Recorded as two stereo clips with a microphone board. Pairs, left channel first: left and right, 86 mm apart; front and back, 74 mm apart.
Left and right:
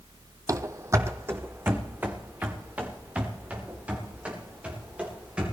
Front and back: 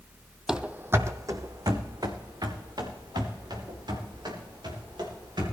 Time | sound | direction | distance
0.5 | running footsteps | 100° right | 0.7 m